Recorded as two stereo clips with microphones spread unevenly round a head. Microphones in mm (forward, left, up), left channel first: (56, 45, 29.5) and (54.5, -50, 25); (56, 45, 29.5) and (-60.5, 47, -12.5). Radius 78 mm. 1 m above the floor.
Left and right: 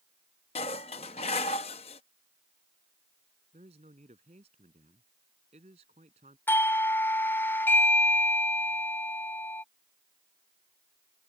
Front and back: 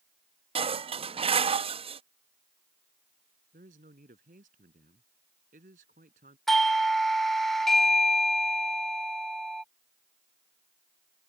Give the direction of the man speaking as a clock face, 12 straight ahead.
5 o'clock.